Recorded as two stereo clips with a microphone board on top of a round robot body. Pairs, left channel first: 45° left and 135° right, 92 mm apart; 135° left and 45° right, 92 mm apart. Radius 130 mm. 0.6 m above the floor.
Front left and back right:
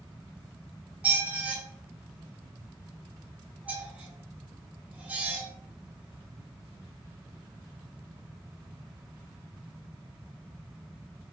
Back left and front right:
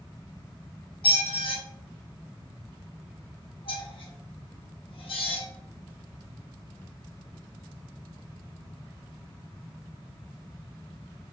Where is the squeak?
150° left, 1.0 m.